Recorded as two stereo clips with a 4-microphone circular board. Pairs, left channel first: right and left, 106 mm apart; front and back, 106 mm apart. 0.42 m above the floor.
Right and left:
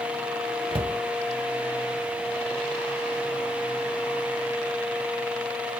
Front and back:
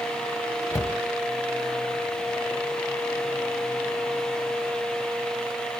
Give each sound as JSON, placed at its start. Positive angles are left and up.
{"t": 0.7, "sound": "a cupboard door", "azimuth_deg": 55, "distance_m": 0.7}